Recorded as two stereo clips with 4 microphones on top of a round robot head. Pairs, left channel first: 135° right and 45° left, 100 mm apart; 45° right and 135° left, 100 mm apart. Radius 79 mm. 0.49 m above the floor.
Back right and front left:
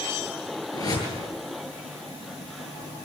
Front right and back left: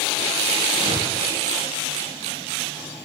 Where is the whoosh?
175° left, 9.5 m.